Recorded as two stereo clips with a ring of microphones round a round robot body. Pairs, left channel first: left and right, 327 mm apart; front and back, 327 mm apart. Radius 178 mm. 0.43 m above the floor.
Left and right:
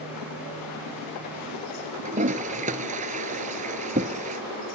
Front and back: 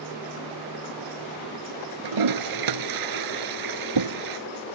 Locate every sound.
2.0 s a toilet flushing: 160° right